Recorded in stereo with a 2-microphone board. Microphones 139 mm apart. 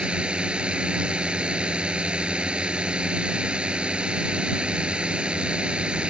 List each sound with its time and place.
0.0 s a drone: 10° right (ahead or behind)